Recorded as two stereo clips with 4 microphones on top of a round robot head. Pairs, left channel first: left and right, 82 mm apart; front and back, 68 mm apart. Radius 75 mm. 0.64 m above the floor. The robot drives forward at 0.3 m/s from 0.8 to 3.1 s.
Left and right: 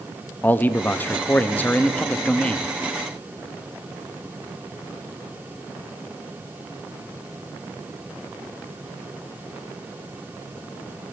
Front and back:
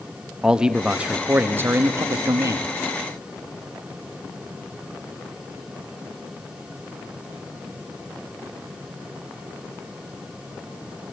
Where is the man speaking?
115° left, 0.6 m; by 2.7 s 160° left, 0.9 m.